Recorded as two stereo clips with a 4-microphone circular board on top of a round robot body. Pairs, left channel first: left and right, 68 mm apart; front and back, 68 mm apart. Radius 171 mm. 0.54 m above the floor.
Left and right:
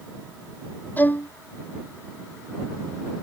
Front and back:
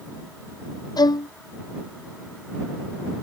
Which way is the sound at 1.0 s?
25° left.